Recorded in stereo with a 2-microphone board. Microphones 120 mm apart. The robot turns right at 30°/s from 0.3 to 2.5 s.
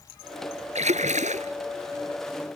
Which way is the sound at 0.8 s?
70° right (ahead or behind).